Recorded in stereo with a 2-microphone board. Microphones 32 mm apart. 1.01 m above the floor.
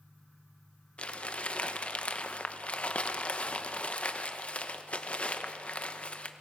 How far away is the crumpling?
About 1.0 m.